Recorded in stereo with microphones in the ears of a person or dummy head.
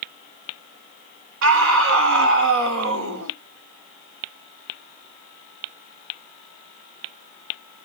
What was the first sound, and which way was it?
A scream, 65° right (ahead or behind).